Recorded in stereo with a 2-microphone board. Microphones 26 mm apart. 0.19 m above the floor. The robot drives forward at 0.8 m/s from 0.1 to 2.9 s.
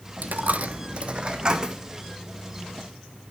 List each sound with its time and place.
0.2 s a dropped coin: 85° right, 0.7 m; by 1.8 s 25° right (ahead or behind), 1.4 m